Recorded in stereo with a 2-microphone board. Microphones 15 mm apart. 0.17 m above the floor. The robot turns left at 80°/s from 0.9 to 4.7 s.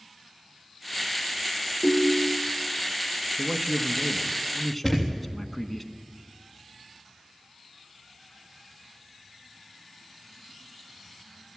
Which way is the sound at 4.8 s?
5° left (ahead or behind).